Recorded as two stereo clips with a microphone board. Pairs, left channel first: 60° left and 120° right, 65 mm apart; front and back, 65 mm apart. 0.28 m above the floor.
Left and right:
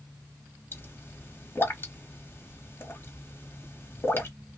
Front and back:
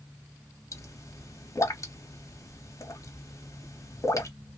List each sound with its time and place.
0.7 s a pop: 15° left, 0.6 m